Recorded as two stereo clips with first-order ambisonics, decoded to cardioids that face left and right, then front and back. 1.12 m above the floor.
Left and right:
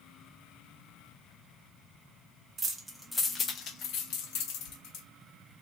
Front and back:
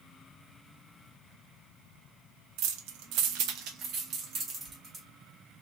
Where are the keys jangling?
160° right, 0.7 m; by 5.0 s 115° left, 1.4 m.